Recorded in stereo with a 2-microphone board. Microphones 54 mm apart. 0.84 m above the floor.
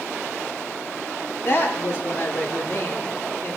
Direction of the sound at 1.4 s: 50° left (ahead or behind).